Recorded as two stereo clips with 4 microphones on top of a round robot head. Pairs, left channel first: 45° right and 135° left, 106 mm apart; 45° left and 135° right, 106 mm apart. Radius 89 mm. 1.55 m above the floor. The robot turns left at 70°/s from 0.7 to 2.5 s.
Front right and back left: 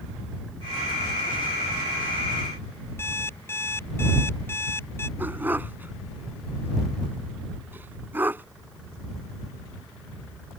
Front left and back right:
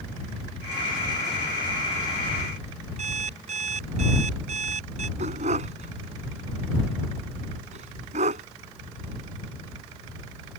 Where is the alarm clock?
115° right.